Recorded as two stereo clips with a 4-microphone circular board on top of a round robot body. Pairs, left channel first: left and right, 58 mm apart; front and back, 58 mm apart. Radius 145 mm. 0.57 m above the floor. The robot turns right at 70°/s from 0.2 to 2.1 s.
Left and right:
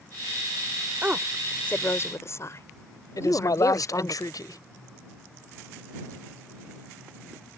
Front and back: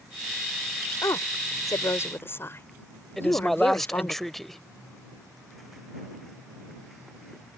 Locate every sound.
1.0 s a woman speaking: 25° right; by 4.2 s 50° left
3.2 s a man speaking: 90° left